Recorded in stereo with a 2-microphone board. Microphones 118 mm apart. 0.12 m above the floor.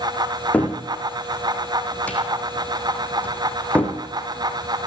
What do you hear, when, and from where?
0.5 s a cupboard door: 10° left (ahead or behind), 3.5 m